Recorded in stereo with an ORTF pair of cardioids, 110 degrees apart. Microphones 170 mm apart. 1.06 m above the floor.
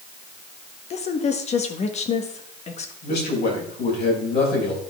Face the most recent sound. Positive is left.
turn(degrees=65)